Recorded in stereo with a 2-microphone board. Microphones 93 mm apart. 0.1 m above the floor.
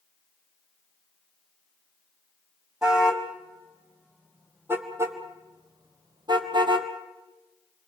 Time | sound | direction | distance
2.8 | a car horn | 5° right (ahead or behind) | 2.5 m